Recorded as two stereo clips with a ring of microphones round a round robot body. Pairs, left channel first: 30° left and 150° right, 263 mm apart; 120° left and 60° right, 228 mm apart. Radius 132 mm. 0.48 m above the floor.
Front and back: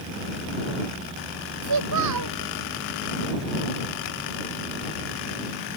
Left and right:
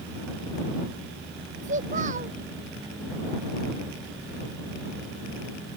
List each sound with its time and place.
1.6 s a child speaking: 125° right